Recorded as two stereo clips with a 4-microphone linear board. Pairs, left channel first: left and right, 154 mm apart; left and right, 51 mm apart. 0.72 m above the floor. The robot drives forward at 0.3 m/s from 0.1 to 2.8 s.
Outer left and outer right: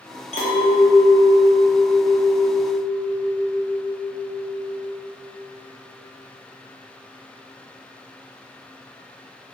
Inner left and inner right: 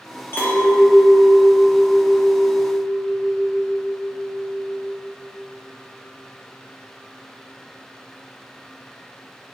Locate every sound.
0.3 s a clink: 45° left (ahead or behind), 0.7 m; by 4.9 s 25° left (ahead or behind), 1.2 m